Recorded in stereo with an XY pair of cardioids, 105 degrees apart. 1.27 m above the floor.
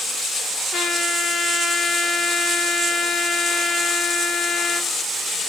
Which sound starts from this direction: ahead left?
A trumpet, at 0.7 s.